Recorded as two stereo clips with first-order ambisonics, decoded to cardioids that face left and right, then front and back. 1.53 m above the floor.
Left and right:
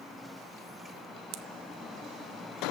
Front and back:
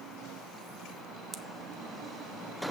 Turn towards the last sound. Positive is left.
turn(degrees=-95)